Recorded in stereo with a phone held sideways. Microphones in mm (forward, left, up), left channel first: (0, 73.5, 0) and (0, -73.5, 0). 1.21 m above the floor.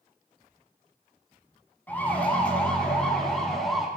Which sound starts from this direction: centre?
A siren, at 1.9 s.